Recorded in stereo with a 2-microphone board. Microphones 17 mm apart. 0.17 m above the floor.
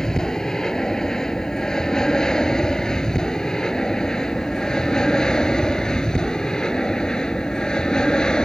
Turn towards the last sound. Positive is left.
turn(degrees=50)  # may be behind; listen again after turning